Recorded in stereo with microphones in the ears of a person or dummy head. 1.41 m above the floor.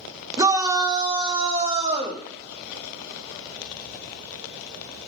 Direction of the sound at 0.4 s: 15° right (ahead or behind).